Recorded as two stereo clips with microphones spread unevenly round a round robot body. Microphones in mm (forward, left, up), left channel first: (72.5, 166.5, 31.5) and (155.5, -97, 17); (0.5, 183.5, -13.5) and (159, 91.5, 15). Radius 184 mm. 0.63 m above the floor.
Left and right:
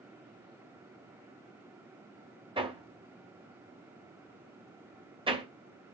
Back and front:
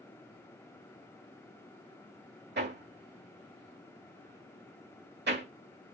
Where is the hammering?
Straight ahead, 2 m.